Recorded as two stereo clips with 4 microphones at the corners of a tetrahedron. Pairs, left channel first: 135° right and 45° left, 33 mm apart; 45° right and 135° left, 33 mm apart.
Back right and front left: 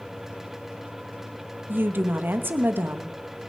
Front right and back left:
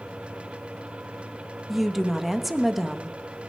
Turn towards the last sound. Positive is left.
turn(degrees=50)